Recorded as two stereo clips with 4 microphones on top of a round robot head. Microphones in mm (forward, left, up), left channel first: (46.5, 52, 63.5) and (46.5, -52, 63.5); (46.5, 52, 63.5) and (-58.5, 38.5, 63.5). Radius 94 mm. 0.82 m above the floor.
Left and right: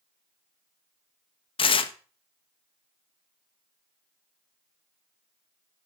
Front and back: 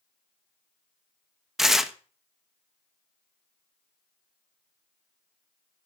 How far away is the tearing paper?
About 0.9 m.